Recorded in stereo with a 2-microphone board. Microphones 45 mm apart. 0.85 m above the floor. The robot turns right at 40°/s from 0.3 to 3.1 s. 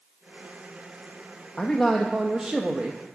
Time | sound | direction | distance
1.6 | a man speaking | 160° left | 0.5 m